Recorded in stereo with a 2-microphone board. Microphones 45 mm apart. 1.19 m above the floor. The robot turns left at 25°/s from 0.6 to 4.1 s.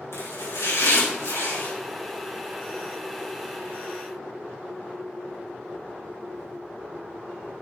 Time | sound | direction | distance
0.1 | chopping | 80° left | 4 m